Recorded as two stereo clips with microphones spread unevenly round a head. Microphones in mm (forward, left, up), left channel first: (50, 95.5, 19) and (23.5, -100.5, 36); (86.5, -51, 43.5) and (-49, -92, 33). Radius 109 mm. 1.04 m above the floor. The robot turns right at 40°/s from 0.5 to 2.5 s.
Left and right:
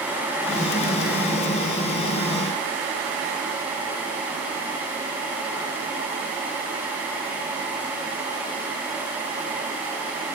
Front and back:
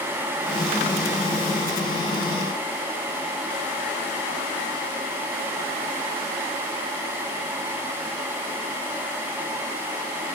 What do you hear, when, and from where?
Only background noise.